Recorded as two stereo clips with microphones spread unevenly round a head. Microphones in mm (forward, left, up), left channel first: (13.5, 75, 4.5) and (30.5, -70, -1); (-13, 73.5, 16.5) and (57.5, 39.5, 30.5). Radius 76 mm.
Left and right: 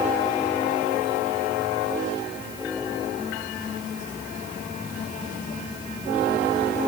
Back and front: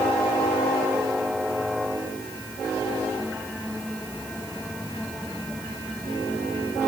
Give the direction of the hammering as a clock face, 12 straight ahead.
I don't hear hammering.